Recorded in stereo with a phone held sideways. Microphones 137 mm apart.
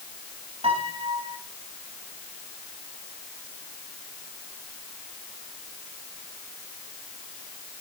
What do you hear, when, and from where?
0.6 s a piano: 45° right (ahead or behind), 4 m